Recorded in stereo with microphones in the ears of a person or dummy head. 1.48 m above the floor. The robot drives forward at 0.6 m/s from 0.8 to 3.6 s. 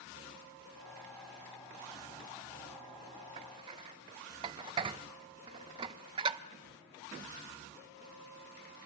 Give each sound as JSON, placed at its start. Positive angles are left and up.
{"t": 3.4, "sound": "dishes clattering", "side_deg": -25, "distance_m": 0.6}